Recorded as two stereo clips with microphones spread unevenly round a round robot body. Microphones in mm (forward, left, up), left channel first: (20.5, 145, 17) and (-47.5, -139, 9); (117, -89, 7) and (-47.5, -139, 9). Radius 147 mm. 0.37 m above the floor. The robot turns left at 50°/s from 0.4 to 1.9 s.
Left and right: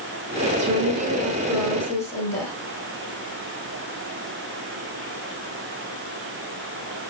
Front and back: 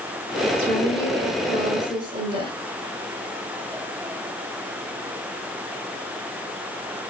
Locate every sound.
0.6 s a woman speaking: 135° right, 4.5 m; by 2.5 s 155° left, 4.5 m